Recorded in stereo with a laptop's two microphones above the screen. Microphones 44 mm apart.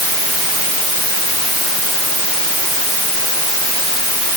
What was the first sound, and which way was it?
Only background noise.